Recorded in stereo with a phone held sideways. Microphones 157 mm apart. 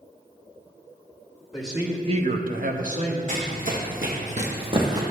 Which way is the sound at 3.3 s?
55° right (ahead or behind).